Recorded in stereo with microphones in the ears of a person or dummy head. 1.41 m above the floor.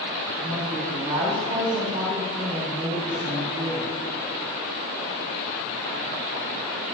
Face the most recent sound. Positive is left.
turn(degrees=-15)  # may be behind; listen again after turning